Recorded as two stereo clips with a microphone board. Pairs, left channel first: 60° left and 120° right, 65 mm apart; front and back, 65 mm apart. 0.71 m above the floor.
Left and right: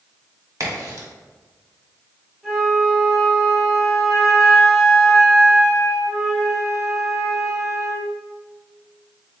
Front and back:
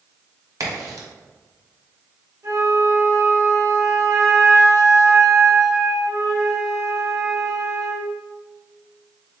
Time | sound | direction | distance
0.6 | a crack | 155° right | 1.4 m
2.4 | a flute | 155° left | 1.8 m